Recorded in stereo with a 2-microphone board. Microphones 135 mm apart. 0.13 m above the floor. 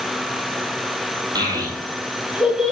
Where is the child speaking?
30° right (ahead or behind), 2.5 m; by 2.7 s centre (ahead or behind), 1.9 m.